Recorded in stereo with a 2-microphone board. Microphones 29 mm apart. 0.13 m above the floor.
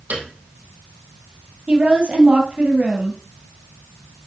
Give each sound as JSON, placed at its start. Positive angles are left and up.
{"t": 0.1, "sound": "a piano", "side_deg": -65, "distance_m": 2.0}
{"t": 1.7, "sound": "a woman speaking", "side_deg": -45, "distance_m": 3.0}